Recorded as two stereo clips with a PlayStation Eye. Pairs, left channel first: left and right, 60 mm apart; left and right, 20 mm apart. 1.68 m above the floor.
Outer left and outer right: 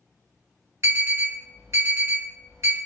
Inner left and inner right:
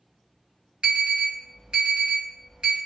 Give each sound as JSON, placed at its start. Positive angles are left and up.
{"t": 0.8, "sound": "an alarm", "side_deg": -50, "distance_m": 1.6}